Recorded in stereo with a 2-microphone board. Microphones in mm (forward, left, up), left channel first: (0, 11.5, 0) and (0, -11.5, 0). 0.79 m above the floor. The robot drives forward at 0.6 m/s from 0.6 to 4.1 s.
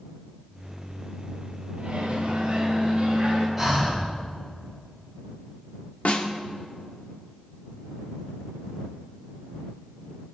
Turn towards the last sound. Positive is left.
turn(degrees=80)